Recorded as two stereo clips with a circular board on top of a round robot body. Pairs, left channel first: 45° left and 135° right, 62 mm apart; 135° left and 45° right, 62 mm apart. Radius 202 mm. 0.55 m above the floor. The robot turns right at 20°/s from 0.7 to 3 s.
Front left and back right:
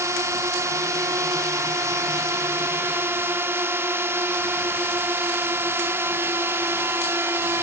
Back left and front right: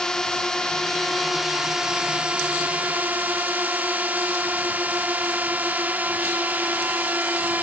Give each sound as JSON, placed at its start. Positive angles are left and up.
{"t": 0.0, "sound": "a drone", "azimuth_deg": -145}